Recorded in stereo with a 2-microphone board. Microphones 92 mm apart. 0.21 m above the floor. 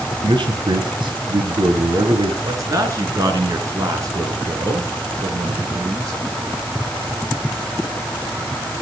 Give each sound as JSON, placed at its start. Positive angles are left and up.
{"t": 0.2, "sound": "a man speaking", "side_deg": -60, "distance_m": 3.5}
{"t": 2.4, "sound": "a man speaking", "side_deg": -40, "distance_m": 3.5}